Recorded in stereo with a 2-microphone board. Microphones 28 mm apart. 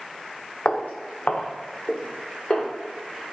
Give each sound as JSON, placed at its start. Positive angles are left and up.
{"t": 0.7, "sound": "footsteps", "side_deg": 60, "distance_m": 0.5}